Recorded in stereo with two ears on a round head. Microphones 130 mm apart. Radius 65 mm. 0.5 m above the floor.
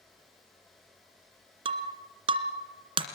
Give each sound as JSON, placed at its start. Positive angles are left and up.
{"t": 1.6, "sound": "breaking glass", "side_deg": -40, "distance_m": 2.0}